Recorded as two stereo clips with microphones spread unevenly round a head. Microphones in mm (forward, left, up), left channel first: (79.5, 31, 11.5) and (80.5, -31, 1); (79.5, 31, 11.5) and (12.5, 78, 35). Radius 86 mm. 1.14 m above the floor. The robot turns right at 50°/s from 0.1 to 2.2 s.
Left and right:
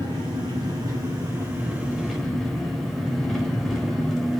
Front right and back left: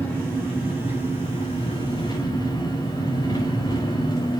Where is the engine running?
105° right, 4.5 m; by 4.4 s straight ahead, 4.5 m.